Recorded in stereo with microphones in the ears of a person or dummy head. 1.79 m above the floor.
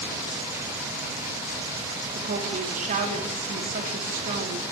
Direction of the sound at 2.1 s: 45° right (ahead or behind).